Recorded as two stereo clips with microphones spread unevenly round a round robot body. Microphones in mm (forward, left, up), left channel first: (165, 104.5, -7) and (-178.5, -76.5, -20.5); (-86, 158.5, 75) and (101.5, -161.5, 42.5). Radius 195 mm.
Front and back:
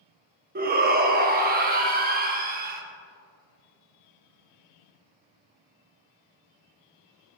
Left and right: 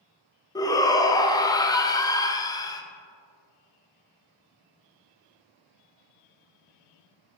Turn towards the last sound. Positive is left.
turn(degrees=-160)